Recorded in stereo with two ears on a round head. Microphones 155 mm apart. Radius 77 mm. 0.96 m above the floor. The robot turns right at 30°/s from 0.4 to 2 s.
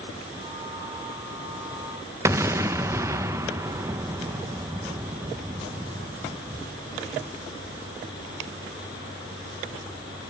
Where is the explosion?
15° right (ahead or behind), 0.5 m.